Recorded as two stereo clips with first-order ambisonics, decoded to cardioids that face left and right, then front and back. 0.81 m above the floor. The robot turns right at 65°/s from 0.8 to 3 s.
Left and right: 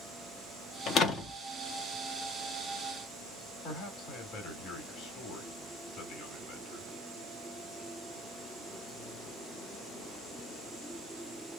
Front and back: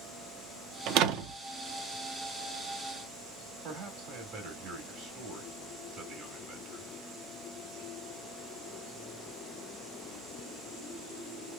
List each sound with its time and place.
0.9 s a door slam: 140° left, 0.6 m; by 1.4 s 170° left, 0.6 m
3.6 s a man speaking: 135° left, 1.7 m